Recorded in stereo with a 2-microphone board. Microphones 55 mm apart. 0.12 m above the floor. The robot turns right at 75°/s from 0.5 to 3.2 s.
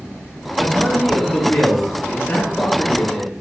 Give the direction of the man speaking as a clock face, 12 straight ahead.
12 o'clock.